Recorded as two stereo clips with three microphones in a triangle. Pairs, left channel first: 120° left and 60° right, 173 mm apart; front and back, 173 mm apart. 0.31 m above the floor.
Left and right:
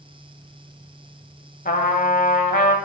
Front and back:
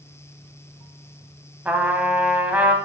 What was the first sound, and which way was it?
A trumpet, 100° left.